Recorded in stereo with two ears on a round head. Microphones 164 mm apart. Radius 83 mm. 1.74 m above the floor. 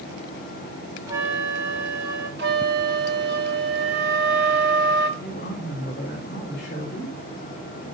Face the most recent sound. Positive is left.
turn(degrees=45)  # may be behind; listen again after turning